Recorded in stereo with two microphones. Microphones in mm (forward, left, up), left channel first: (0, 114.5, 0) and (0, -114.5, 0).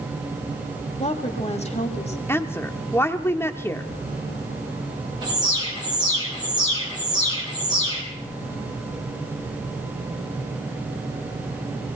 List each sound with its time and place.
1.0 s a woman speaking: 25° left (ahead or behind), 1.4 m
2.3 s a woman speaking: 10° left (ahead or behind), 0.8 m
5.2 s an alarm: 20° right (ahead or behind), 4 m